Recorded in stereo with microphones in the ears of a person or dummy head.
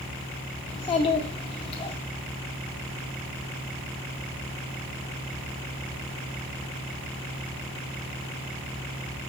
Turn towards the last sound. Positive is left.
turn(degrees=30)  # may be behind; listen again after turning